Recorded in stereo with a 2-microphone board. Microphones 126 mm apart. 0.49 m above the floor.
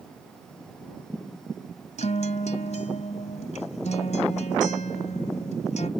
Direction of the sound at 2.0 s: 80° left.